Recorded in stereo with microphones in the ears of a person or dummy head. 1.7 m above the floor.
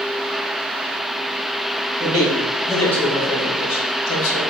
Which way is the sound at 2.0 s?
20° right (ahead or behind).